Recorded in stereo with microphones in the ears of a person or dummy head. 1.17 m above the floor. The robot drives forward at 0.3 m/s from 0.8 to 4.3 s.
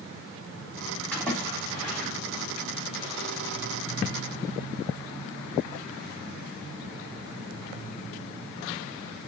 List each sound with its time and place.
1.1 s a splash: 10° left (ahead or behind), 3.5 m